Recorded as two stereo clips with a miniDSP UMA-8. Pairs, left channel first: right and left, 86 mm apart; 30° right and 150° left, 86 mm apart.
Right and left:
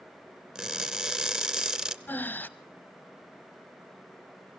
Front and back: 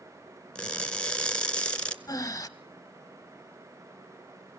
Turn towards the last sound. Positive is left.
turn(degrees=-35)